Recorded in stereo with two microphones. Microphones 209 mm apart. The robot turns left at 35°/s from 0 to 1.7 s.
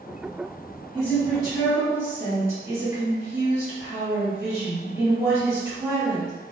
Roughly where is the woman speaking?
Centre.